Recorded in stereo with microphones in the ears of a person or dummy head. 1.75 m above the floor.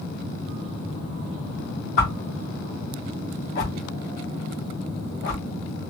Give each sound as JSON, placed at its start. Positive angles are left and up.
{"t": 2.0, "sound": "a whoosh", "side_deg": 50, "distance_m": 1.1}